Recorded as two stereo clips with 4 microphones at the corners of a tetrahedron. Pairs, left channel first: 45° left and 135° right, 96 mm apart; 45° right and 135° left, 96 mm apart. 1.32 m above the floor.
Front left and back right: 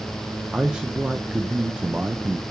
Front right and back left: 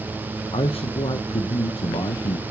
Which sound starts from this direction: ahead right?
A man speaking, at 0.5 s.